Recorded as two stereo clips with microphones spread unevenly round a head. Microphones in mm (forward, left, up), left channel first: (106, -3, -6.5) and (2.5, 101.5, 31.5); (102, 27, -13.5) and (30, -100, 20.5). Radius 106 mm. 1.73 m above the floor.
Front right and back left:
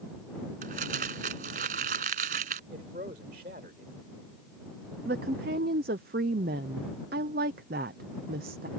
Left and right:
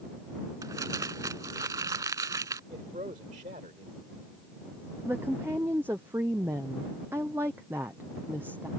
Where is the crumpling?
170° left.